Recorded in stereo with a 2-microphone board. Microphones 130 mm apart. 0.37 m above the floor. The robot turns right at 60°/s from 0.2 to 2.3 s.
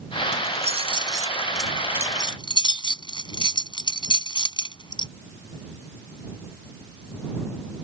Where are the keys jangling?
70° right (ahead or behind); by 5.1 s 35° left (ahead or behind).